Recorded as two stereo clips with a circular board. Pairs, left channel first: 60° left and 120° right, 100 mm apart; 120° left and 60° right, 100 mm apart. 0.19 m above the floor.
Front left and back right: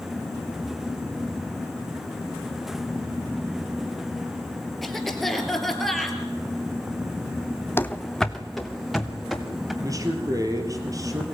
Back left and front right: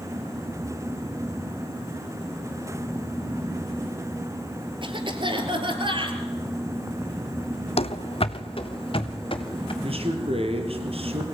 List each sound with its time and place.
4.8 s a cough: 30° right, 3.5 m
7.8 s running footsteps: 130° left, 0.6 m; by 9.7 s 155° left, 3.5 m
9.8 s a man speaking: 65° right, 3.5 m